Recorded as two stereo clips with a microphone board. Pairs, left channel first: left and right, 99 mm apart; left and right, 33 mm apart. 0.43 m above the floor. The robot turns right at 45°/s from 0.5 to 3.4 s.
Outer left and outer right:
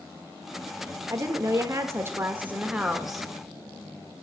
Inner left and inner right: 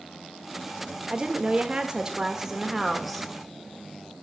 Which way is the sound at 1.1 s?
95° right.